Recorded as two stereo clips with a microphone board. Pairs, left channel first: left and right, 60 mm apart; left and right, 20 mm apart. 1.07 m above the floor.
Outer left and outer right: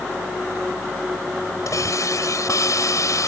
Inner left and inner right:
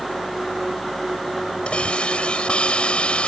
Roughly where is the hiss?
Left.